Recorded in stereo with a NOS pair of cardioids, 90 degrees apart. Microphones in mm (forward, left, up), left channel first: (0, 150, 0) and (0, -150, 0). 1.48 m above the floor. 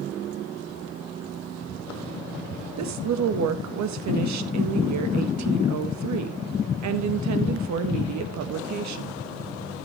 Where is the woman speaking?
65° right, 1.7 m.